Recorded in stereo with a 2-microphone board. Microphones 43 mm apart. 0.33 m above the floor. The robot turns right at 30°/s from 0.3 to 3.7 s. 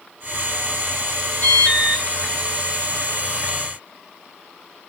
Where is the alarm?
60° right (ahead or behind), 3.5 m.